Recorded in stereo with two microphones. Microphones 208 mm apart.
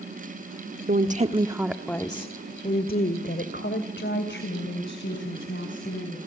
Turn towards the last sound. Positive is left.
turn(degrees=70)  # may be behind; listen again after turning